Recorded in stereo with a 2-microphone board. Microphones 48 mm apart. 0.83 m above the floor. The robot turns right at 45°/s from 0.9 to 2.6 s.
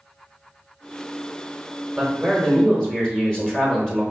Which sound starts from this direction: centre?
A man speaking, at 2.0 s.